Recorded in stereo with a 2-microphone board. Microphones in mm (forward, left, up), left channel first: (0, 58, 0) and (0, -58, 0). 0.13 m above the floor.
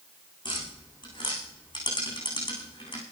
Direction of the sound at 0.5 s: 40° left (ahead or behind).